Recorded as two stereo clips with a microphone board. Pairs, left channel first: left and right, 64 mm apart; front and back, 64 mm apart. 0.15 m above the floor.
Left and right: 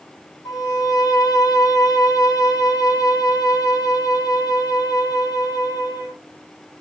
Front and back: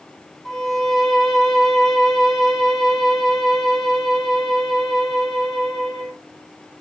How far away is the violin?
About 1.2 m.